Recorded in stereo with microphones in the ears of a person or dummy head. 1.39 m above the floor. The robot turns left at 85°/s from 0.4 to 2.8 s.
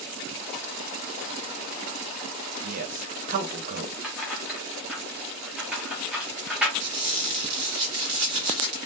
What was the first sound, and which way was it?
A man speaking, 60° right (ahead or behind).